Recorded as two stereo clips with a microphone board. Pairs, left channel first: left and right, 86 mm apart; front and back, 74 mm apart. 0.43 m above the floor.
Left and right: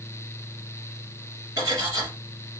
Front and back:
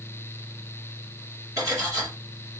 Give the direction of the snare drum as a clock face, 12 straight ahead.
No snare drum in this recording.